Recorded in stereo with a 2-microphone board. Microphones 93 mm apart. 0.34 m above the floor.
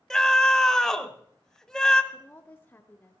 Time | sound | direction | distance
0.1 | a scream | 5° left (ahead or behind) | 1.1 m
2.1 | a woman speaking | 20° left (ahead or behind) | 0.9 m